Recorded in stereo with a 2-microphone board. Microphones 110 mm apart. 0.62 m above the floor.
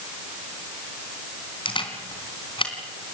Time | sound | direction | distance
1.6 | a camera shutter | 50° left (ahead or behind) | 3.5 m